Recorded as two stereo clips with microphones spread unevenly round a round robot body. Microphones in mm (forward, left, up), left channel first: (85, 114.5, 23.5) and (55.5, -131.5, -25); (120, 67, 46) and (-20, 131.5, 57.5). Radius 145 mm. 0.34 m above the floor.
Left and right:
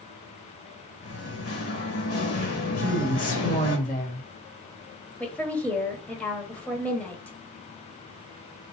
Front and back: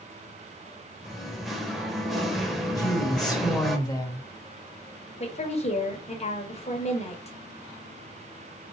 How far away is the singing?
About 1.3 m.